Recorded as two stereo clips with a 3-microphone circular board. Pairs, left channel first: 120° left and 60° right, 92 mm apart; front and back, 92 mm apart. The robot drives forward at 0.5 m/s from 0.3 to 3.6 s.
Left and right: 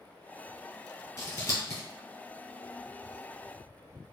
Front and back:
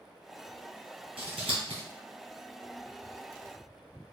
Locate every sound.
1.2 s scissors: straight behind, 2.5 m